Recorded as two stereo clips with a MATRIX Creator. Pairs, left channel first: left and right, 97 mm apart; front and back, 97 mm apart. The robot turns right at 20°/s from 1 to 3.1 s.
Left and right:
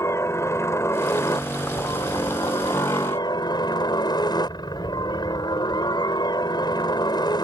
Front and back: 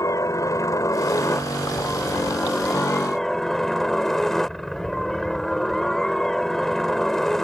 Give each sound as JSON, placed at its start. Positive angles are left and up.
{"t": 0.0, "sound": "a helicopter", "azimuth_deg": 40}